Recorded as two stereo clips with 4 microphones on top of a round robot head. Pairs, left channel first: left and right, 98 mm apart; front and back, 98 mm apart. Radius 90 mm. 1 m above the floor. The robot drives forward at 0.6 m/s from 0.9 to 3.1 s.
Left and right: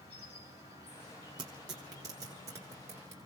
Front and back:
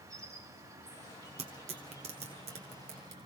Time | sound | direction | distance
0.0 | an insect | 125° left | 4.5 m
1.4 | tearing paper | 145° right | 1.5 m